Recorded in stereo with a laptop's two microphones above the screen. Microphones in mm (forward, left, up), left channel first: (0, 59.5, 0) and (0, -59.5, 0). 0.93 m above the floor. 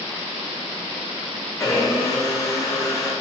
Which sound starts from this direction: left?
A blender, at 1.6 s.